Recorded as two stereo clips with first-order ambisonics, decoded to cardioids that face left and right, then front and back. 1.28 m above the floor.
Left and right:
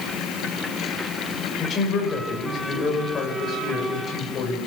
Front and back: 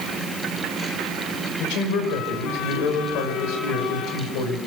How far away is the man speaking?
About 6 m.